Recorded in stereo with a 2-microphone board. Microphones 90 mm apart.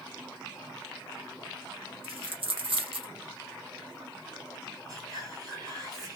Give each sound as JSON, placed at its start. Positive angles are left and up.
{"t": 2.0, "sound": "a dropped coin", "side_deg": -85, "distance_m": 0.7}
{"t": 4.9, "sound": "whispering", "side_deg": -45, "distance_m": 1.5}